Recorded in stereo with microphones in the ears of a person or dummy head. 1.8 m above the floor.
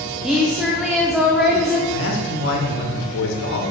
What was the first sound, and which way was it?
A woman speaking, centre (ahead or behind).